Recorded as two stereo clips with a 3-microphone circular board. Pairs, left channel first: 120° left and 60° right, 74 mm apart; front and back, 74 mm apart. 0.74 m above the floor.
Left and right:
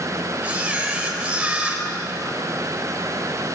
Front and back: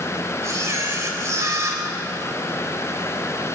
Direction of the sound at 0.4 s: 135° right.